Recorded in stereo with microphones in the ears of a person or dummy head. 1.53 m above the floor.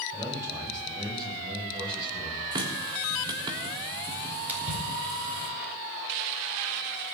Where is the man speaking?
15° right (ahead or behind), 8.5 m; by 2.4 s 30° right (ahead or behind), 8.5 m.